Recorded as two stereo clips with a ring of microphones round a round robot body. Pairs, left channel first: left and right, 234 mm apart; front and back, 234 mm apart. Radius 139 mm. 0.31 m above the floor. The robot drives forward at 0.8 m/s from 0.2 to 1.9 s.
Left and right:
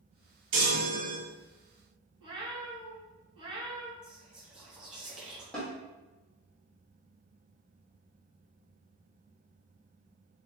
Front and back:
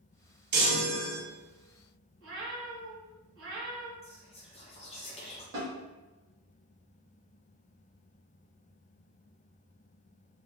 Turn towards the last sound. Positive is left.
turn(degrees=175)